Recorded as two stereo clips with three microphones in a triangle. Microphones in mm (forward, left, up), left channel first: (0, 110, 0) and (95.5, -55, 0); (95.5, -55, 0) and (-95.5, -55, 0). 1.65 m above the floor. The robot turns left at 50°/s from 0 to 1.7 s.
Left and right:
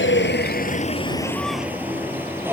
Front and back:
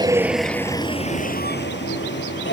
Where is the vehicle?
110° left; by 2.5 s 20° left.